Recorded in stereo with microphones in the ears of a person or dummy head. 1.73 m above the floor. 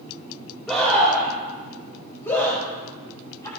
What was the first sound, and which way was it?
A scream, 5° left (ahead or behind).